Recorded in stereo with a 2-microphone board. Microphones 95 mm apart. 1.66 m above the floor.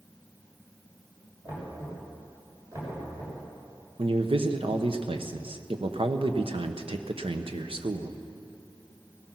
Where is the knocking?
40° right (ahead or behind), 6.5 m.